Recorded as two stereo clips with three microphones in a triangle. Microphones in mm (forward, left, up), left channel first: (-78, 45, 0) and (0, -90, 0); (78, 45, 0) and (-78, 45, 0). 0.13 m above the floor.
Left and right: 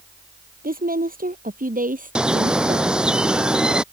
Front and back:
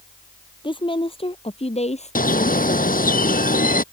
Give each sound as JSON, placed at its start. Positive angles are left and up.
{"t": 0.6, "sound": "a woman speaking", "azimuth_deg": -55}
{"t": 2.1, "sound": "a bird", "azimuth_deg": 25}